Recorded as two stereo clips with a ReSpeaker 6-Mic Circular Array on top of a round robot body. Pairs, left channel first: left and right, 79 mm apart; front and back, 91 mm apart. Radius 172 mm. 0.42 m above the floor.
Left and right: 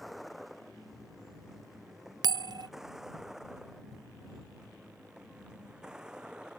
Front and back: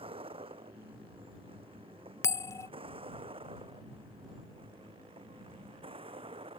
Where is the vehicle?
Straight behind; by 6.6 s 170° right.